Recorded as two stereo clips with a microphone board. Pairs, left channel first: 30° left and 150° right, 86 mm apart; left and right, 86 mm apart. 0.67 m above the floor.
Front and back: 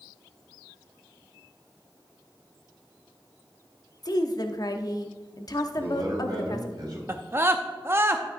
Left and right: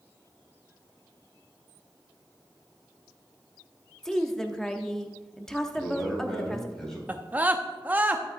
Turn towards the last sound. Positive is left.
turn(degrees=-135)